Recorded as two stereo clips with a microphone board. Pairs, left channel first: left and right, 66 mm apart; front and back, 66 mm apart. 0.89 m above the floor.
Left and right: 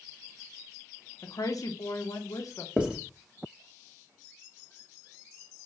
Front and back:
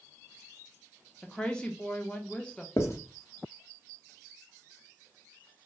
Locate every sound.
1.2 s a woman speaking: 75° left, 0.9 m
2.8 s writing: 20° right, 1.2 m